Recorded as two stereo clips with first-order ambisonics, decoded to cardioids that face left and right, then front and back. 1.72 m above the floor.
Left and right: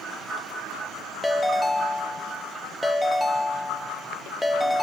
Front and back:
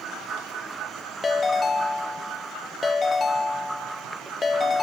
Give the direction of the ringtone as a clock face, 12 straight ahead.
12 o'clock.